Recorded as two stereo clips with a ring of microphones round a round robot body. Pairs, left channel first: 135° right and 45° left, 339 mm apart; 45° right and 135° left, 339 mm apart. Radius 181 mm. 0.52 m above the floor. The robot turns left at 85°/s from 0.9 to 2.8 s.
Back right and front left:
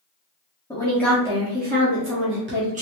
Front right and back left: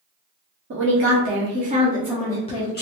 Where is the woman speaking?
150° left, 1.0 m; by 2.8 s 10° right, 1.0 m.